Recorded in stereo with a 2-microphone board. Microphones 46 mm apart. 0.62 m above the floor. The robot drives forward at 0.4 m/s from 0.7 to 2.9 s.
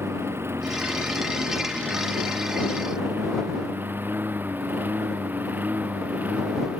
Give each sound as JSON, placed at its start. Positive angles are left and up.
{"t": 0.0, "sound": "a lawn mower", "side_deg": -55}